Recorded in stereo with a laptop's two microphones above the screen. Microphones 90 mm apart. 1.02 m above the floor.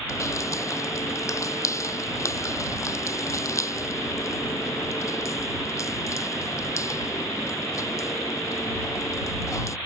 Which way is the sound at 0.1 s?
35° left (ahead or behind).